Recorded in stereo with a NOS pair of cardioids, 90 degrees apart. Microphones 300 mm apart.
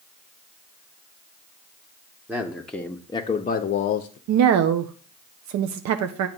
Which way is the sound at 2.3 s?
5° right.